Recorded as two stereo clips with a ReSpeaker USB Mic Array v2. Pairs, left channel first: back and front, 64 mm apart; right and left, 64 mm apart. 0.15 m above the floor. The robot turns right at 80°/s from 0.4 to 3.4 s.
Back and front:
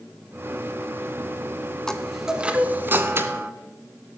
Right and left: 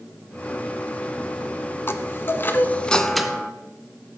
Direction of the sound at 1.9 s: 105° right.